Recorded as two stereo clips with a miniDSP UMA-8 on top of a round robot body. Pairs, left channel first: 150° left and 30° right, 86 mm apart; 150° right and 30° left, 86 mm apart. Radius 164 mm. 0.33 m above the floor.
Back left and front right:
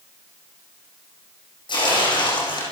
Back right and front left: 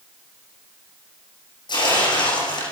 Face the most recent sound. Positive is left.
turn(degrees=180)